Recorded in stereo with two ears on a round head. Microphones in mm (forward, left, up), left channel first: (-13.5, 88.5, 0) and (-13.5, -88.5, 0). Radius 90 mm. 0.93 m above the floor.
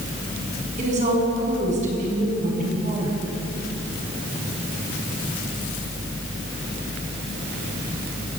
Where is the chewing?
No chewing in this recording.